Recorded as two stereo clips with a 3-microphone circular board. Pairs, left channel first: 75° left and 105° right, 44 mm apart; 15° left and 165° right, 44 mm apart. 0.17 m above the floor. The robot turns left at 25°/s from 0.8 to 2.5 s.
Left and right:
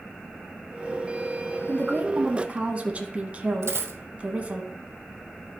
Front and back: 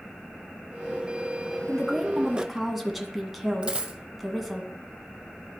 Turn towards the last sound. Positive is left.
turn(degrees=-100)